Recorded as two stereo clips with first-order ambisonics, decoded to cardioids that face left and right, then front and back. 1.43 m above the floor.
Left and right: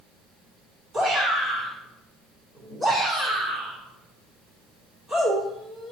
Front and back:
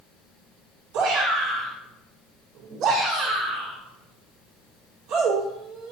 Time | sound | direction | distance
0.9 | a shout | 160° right | 4 m